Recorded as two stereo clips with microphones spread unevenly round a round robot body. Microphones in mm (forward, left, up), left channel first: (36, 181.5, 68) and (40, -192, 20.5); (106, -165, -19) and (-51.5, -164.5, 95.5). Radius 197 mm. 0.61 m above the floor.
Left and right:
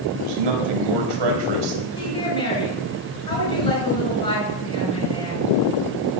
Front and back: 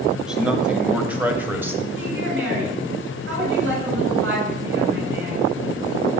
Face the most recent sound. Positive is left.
turn(degrees=170)